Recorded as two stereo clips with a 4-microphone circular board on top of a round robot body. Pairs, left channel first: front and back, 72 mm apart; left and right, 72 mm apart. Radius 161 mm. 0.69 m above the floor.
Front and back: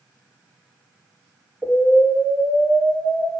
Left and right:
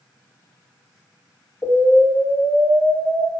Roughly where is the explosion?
Behind left.